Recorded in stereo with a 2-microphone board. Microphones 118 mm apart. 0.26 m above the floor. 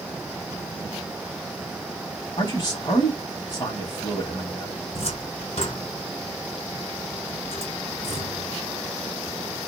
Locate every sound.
2.4 s a man speaking: 35° left (ahead or behind), 1.1 m
4.9 s a cupboard door: 60° left (ahead or behind), 1.6 m